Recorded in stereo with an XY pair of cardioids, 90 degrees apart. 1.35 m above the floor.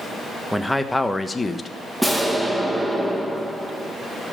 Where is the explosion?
5° right, 2 m.